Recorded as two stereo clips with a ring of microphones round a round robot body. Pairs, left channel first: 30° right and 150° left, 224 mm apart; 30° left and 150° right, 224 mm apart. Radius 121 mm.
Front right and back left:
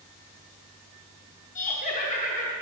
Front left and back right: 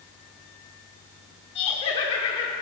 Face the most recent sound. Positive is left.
turn(degrees=-15)